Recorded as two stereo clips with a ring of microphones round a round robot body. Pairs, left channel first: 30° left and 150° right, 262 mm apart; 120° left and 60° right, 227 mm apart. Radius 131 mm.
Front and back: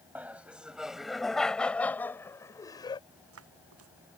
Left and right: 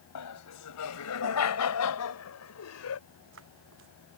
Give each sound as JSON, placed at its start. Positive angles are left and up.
{"t": 0.1, "sound": "laughter", "azimuth_deg": 125}
{"t": 3.1, "sound": "footsteps", "azimuth_deg": -110}